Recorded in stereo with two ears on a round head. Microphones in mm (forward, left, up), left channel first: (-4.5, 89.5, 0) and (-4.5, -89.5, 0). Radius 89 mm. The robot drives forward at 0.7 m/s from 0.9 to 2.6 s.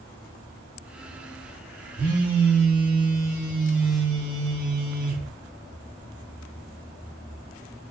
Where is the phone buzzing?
10° right (ahead or behind), 1.4 m; by 5.3 s 5° right (ahead or behind), 1.9 m.